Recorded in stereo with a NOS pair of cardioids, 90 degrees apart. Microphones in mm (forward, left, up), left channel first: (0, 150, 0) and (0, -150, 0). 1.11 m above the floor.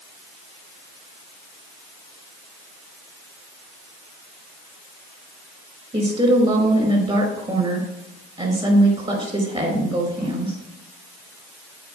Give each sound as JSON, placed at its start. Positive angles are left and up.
{"t": 5.9, "sound": "a woman speaking", "azimuth_deg": -20, "distance_m": 5.0}